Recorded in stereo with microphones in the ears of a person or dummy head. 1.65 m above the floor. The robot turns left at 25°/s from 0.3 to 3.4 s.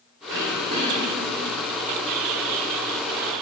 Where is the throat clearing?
60° right (ahead or behind), 4 m; by 1.4 s 35° right (ahead or behind), 4 m.